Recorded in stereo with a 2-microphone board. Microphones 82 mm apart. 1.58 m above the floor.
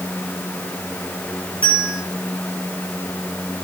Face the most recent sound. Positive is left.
turn(degrees=15)  # may be behind; listen again after turning